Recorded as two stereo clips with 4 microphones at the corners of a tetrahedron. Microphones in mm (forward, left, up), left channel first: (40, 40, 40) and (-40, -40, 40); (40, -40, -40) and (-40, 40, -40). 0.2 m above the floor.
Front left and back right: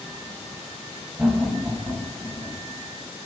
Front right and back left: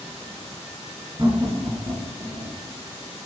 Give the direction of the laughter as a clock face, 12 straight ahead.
7 o'clock.